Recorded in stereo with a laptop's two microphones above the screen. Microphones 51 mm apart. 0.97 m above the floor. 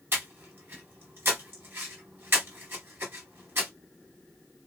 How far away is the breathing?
About 1.2 m.